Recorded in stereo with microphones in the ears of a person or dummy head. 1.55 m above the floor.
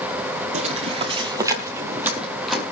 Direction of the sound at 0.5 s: 40° right (ahead or behind).